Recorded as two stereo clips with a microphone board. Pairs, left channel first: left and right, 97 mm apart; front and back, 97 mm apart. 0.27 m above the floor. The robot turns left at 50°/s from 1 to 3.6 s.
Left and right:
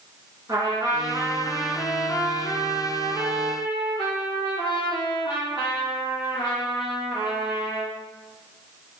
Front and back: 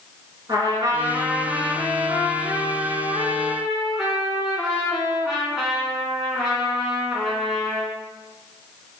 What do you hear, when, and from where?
0.5 s a trumpet: 135° right, 1.4 m; by 8.0 s 95° left, 1.4 m